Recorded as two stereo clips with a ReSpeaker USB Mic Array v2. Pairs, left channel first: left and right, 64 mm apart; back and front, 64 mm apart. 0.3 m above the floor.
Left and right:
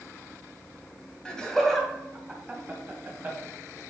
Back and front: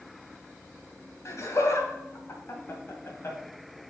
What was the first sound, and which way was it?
Laughter, 165° left.